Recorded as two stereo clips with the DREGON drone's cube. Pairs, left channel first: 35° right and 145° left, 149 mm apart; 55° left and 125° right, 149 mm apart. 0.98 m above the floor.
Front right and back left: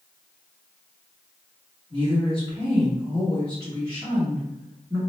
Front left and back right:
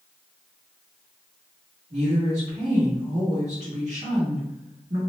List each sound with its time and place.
1.9 s a woman speaking: 160° right, 1.4 m